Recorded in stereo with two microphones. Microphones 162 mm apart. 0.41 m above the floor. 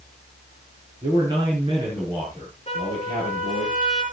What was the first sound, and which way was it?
A man speaking, 30° right (ahead or behind).